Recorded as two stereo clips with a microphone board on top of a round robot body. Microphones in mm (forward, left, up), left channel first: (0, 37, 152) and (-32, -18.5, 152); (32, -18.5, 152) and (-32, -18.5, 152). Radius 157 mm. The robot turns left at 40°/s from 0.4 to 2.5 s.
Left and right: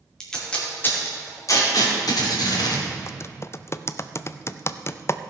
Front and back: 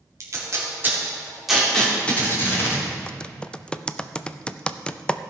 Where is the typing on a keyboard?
70° left, 0.6 m.